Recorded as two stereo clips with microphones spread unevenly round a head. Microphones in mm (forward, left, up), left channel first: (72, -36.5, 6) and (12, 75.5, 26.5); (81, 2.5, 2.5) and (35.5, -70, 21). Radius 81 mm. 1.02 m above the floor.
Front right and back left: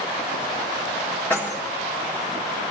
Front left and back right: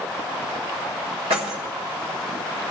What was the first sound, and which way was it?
Keys jangling, 140° right.